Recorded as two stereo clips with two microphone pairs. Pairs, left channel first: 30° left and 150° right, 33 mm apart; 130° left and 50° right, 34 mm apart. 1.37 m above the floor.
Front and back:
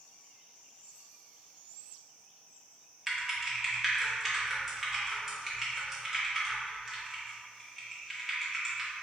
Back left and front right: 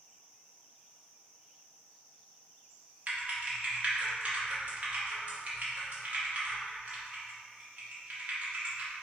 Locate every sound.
3.1 s typing on a keyboard: 80° right, 1.0 m